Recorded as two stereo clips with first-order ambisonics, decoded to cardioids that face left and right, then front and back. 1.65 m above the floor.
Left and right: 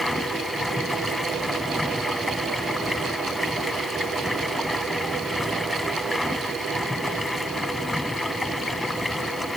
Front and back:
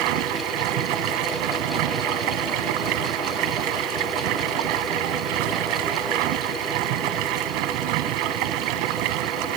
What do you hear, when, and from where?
0.0 s running water: 175° left